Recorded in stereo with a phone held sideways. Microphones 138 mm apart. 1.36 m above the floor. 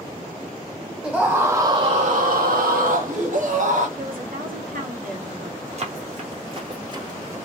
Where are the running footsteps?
45° right (ahead or behind), 2 m; by 7.4 s 15° right (ahead or behind), 1.5 m.